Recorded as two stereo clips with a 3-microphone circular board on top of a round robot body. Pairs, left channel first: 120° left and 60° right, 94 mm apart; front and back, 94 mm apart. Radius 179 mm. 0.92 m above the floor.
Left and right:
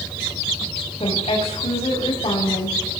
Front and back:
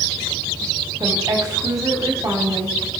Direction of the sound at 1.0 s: 125° left.